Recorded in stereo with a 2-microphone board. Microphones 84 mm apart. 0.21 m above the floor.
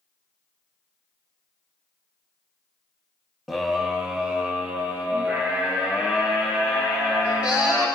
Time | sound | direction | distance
3.5 | a scream | centre (ahead or behind) | 1.0 m